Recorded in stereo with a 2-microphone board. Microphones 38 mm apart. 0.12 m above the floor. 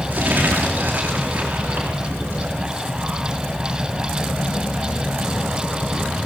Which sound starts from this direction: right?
Crumpling, at 0.1 s.